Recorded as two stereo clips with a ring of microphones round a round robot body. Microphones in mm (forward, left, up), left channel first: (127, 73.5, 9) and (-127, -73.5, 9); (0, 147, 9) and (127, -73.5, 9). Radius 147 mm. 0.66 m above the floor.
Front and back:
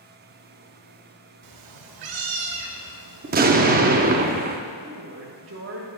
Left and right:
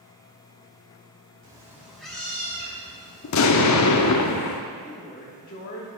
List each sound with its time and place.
1.4 s a cat meowing: 135° right, 0.8 m; by 3.4 s 165° right, 1.7 m
3.2 s an explosion: 150° left, 0.6 m
4.8 s a woman speaking: 175° left, 1.2 m